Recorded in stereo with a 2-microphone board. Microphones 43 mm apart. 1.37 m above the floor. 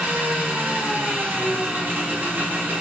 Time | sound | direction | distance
0.0 | an engine running | 45° right (ahead or behind) | 1.0 m